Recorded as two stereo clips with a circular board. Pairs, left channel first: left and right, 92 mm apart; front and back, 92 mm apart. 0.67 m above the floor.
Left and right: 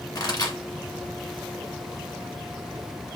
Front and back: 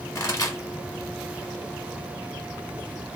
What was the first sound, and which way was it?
A pop, 50° left.